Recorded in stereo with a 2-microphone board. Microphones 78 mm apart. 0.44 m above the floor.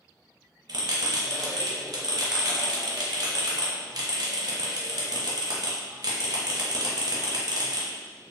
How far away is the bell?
About 0.7 m.